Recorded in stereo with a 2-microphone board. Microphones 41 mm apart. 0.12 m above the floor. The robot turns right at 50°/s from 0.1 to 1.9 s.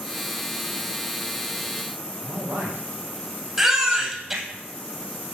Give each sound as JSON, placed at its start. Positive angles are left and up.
{"t": 2.2, "sound": "a man speaking", "side_deg": -65, "distance_m": 4.0}
{"t": 3.6, "sound": "a baby crying", "side_deg": -10, "distance_m": 3.0}